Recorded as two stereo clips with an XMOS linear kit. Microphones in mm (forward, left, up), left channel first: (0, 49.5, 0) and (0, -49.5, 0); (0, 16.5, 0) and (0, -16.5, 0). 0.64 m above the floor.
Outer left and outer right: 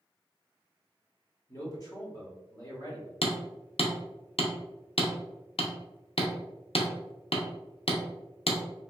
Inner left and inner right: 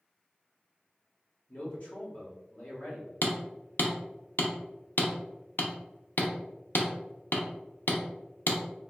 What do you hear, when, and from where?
1.5 s a man speaking: 40° left (ahead or behind), 1.4 m
3.2 s hammering: 75° left (ahead or behind), 0.5 m